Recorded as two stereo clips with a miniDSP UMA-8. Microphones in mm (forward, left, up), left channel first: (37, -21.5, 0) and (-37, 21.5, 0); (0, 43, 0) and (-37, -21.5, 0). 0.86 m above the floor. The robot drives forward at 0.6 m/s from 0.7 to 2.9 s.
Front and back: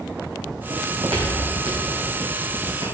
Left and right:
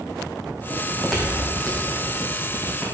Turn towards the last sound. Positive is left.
turn(degrees=135)